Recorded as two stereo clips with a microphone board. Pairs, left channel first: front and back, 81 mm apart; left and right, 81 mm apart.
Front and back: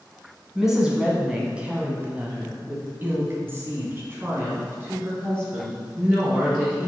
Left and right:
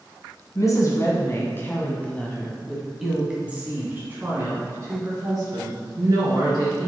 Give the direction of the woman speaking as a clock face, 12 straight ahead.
9 o'clock.